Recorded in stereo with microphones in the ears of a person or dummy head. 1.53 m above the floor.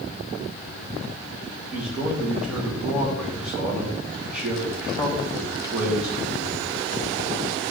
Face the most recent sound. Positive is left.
turn(degrees=-5)  # may be behind; listen again after turning